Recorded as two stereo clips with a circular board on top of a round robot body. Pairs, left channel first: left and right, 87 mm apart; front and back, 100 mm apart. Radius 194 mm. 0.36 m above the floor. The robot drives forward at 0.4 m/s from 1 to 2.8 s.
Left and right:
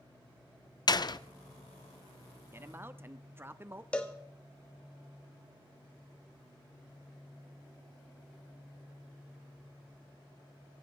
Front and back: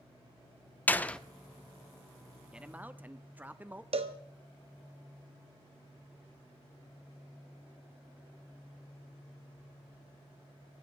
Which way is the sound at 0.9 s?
70° left.